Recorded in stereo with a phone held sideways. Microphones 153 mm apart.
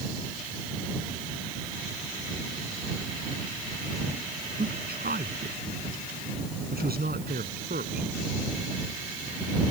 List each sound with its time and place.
4.6 s a man speaking: 85° right